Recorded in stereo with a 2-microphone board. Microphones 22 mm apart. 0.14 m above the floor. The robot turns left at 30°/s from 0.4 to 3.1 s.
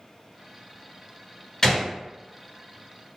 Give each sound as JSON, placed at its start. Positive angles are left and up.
{"t": 1.6, "sound": "a gunshot", "side_deg": 30, "distance_m": 1.3}